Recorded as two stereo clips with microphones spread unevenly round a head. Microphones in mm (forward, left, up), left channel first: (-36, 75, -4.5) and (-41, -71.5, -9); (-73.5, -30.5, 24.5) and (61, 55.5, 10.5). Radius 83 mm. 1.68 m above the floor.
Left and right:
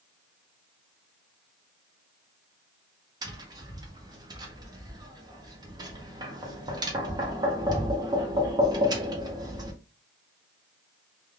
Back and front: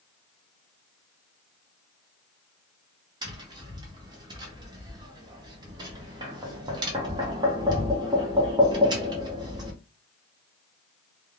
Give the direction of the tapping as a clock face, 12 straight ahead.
1 o'clock.